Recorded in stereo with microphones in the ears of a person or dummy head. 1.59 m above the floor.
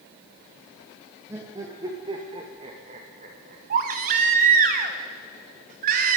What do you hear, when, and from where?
1.3 s laughter: 15° right (ahead or behind), 2.5 m; by 3.6 s 50° right (ahead or behind), 2.5 m
3.7 s a baby crying: 50° right (ahead or behind), 1.4 m